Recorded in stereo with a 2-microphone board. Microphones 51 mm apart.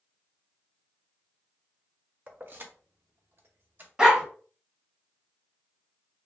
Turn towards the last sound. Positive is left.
turn(degrees=-15)  # may be behind; listen again after turning